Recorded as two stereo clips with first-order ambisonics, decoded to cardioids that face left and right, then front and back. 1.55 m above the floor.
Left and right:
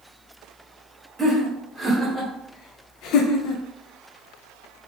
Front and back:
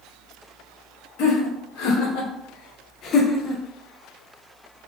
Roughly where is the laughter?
Ahead.